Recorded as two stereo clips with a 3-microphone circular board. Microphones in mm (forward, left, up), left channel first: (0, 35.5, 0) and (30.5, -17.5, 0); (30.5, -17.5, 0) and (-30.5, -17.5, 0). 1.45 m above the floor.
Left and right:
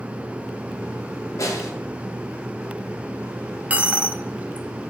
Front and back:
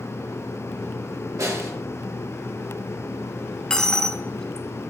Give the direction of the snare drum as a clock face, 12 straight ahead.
7 o'clock.